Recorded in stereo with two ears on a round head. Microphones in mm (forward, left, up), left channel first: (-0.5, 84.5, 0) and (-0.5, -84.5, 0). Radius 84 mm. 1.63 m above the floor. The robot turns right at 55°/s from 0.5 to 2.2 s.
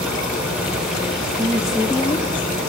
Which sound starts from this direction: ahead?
A woman speaking, at 1.4 s.